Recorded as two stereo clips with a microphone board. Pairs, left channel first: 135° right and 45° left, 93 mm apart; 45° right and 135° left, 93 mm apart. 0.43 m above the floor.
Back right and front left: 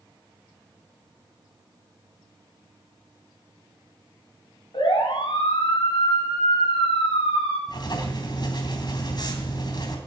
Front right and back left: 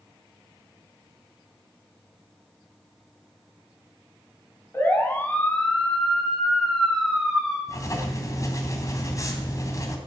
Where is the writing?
95° right, 3 m.